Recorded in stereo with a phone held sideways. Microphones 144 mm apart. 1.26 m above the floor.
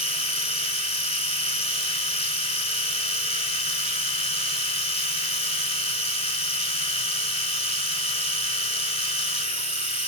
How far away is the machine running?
About 2.0 m.